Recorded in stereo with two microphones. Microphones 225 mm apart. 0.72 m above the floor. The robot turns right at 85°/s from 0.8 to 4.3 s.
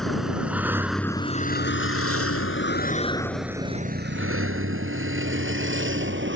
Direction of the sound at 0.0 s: Centre (ahead or behind).